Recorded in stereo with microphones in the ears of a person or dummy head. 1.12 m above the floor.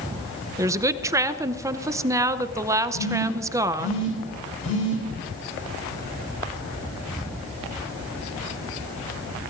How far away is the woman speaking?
About 0.6 m.